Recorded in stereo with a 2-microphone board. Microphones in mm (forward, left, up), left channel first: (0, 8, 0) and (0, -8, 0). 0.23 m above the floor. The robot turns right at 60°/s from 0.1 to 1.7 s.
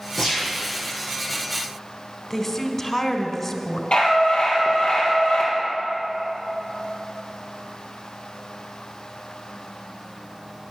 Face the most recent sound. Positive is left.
turn(degrees=75)  # may be behind; listen again after turning